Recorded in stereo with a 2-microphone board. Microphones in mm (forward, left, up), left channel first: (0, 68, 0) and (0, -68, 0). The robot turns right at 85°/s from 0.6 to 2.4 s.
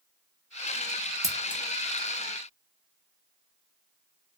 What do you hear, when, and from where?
1.2 s scissors: 25° right (ahead or behind), 0.6 m; by 1.6 s 5° right (ahead or behind), 0.6 m